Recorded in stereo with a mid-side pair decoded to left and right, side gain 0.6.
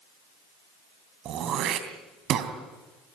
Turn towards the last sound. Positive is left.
turn(degrees=-55)